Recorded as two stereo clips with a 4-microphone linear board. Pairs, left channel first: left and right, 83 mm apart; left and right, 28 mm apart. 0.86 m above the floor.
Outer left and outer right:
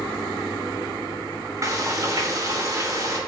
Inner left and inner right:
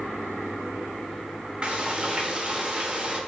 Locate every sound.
1.6 s frying: 40° right (ahead or behind), 3 m